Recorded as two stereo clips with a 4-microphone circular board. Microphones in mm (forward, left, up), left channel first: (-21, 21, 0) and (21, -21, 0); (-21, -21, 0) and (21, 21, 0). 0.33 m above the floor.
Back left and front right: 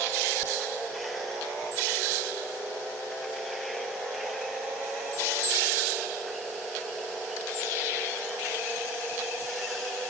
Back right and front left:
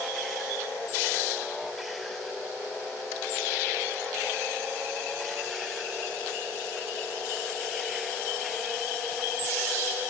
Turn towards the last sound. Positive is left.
No sound to turn to.